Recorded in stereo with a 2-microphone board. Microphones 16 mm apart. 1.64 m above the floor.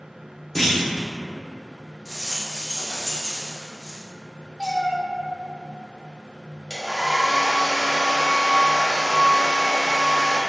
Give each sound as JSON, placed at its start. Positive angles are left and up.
{"t": 0.6, "sound": "a clunk", "side_deg": 15, "distance_m": 0.9}
{"t": 2.0, "sound": "a rattle", "side_deg": 50, "distance_m": 1.6}
{"t": 4.6, "sound": "a cat meowing", "side_deg": 20, "distance_m": 1.8}
{"t": 6.7, "sound": "a hair dryer", "side_deg": -40, "distance_m": 1.0}